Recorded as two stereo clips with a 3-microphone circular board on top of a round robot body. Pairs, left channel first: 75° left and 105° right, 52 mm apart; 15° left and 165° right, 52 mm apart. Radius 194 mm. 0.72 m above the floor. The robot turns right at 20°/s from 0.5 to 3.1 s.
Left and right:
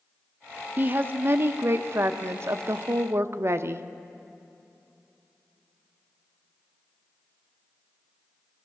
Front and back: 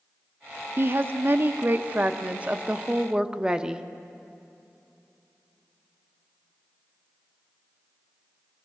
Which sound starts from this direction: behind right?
A woman speaking, at 0.8 s.